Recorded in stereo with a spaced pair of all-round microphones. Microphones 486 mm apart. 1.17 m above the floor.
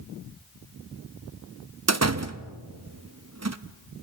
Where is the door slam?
35° right (ahead or behind), 0.6 m.